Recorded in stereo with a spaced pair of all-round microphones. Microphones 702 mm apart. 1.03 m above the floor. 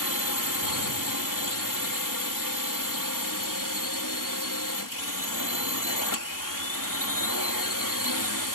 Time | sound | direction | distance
0.0 | a drone | 25° left (ahead or behind) | ?